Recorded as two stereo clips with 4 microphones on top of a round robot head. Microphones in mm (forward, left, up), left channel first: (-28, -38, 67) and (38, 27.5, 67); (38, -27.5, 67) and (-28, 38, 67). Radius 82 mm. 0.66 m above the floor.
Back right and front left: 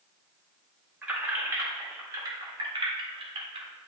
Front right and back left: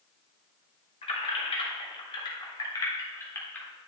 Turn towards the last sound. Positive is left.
turn(degrees=30)